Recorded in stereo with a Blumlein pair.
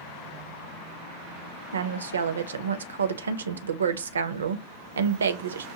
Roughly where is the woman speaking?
Right.